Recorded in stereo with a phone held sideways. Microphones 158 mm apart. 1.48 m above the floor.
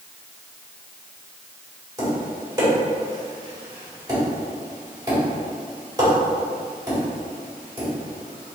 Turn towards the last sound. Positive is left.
turn(degrees=-25)  # may be behind; listen again after turning